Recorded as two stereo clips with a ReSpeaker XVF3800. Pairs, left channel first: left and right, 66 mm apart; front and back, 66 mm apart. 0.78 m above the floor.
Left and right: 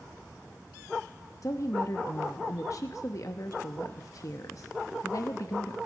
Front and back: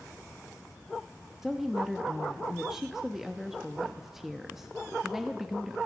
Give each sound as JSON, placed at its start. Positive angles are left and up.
{"t": 1.4, "sound": "a woman speaking", "azimuth_deg": 95, "distance_m": 0.8}